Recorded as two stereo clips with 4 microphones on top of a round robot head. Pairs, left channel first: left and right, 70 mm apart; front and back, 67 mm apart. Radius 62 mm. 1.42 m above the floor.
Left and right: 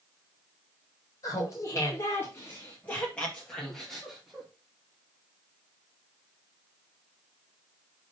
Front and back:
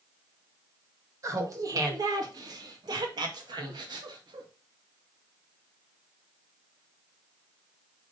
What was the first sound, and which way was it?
Laughter, 140° left.